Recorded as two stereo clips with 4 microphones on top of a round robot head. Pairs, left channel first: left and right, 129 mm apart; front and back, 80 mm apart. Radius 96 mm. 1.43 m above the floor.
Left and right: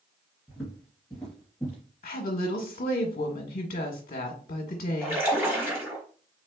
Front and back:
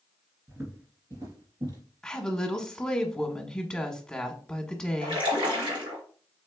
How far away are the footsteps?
About 1.5 m.